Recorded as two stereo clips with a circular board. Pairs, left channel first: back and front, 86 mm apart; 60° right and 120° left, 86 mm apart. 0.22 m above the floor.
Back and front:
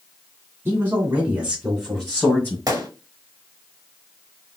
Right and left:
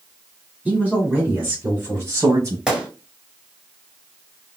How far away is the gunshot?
About 1.3 m.